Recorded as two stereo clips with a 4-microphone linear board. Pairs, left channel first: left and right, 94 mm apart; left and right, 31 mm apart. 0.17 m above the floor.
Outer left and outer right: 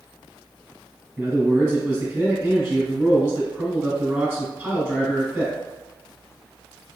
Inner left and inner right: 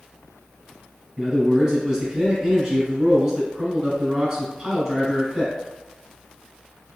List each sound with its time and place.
1.2 s a man speaking: 25° right (ahead or behind), 1.3 m